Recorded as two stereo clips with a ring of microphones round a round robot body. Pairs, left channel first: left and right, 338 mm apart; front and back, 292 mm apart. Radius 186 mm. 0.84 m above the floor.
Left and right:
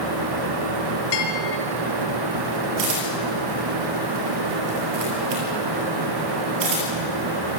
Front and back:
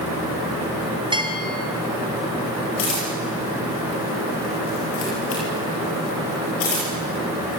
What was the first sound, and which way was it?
A bell, 105° left.